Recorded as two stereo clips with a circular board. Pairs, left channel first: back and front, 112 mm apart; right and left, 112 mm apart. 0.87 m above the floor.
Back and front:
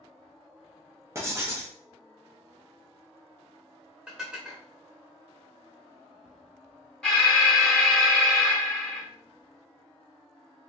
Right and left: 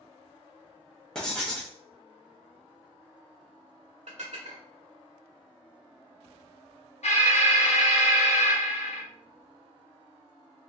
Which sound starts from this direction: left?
Dishes clattering, at 4.1 s.